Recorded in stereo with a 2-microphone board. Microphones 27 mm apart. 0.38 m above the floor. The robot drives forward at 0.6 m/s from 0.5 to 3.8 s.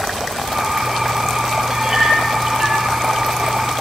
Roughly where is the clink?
Right.